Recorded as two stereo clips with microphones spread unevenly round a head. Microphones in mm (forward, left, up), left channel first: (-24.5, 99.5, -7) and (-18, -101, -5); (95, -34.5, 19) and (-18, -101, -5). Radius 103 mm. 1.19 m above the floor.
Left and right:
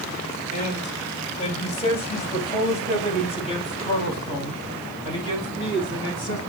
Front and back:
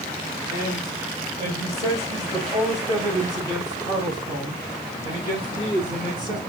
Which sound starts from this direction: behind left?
A man speaking, at 0.5 s.